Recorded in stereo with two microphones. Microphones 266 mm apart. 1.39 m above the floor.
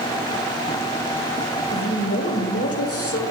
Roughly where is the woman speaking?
Left.